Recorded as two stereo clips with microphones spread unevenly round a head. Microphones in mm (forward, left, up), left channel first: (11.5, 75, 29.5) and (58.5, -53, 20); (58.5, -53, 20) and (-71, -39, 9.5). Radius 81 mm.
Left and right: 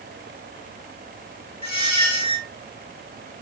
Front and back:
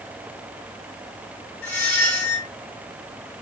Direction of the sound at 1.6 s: 70° left.